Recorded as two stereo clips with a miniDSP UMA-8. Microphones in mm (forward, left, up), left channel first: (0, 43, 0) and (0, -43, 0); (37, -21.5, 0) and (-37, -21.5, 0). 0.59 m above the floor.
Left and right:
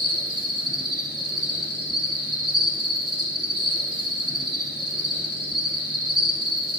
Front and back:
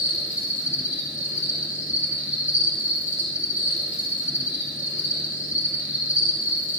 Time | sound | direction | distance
0.0 | an insect | 115° right | 2.5 m